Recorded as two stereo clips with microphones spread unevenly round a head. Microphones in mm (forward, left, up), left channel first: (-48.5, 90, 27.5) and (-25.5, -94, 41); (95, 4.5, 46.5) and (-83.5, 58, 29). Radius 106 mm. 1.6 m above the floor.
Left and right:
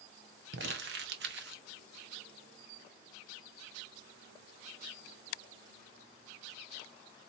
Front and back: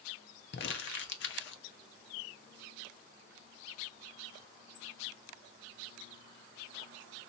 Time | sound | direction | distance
0.5 | crumpling | 45° right | 0.7 m